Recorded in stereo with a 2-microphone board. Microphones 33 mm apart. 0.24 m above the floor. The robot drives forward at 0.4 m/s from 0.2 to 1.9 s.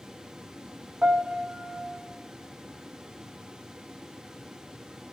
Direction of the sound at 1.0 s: 25° right (ahead or behind).